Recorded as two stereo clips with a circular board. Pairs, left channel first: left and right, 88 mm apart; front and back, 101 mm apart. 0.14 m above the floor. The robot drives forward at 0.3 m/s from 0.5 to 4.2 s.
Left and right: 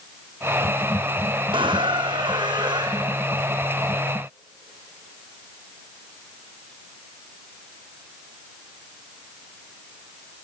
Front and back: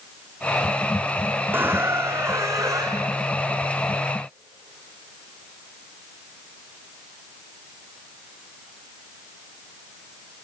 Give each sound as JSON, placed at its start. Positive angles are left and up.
{"t": 1.5, "sound": "a squeak", "azimuth_deg": -110, "distance_m": 1.9}